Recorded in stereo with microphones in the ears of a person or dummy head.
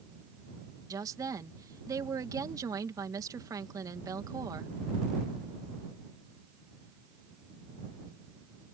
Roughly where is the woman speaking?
Centre.